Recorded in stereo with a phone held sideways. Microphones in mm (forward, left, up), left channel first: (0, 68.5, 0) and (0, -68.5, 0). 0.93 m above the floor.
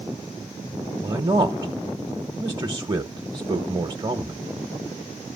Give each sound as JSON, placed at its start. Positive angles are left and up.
{"t": 1.0, "sound": "a man speaking", "side_deg": -30, "distance_m": 1.2}